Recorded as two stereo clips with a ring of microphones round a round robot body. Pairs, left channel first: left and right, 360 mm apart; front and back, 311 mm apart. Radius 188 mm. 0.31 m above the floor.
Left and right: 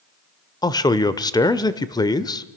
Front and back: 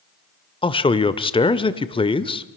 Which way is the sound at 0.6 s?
35° left.